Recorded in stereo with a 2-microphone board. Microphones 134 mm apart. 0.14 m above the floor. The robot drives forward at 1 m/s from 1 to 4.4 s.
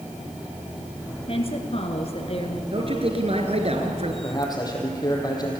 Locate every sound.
1.3 s a woman speaking: 45° left (ahead or behind), 2.5 m
2.7 s a man speaking: 45° right (ahead or behind), 2.5 m; by 4.1 s 50° right (ahead or behind), 2.5 m
4.2 s a man speaking: 30° left (ahead or behind), 4.5 m